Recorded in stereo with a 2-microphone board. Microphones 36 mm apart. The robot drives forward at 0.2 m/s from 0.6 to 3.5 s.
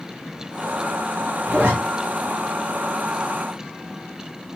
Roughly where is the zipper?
Right.